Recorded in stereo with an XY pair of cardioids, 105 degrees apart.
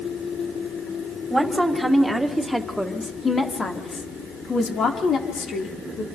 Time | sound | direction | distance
1.3 | a woman speaking | 10° right | 5 m